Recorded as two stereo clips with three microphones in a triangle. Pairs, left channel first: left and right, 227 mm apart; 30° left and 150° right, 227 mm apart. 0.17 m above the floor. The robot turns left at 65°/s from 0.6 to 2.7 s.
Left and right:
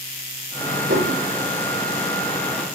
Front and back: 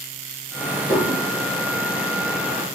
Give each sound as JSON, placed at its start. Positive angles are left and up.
{"t": 0.9, "sound": "dishes clattering", "azimuth_deg": -55, "distance_m": 4.5}